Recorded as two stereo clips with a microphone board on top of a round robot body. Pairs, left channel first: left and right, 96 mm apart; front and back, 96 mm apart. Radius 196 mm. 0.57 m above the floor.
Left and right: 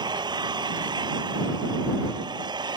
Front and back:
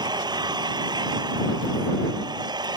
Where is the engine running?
135° right.